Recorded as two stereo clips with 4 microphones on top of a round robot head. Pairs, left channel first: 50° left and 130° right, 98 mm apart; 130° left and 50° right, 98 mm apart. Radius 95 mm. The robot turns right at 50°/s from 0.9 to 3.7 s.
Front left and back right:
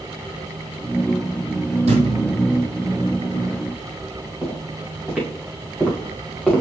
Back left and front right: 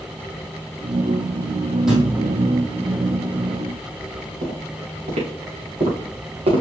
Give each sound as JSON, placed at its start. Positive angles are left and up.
{"t": 1.9, "sound": "a thud", "azimuth_deg": -135, "distance_m": 2.5}
{"t": 4.4, "sound": "footsteps", "azimuth_deg": -45, "distance_m": 4.0}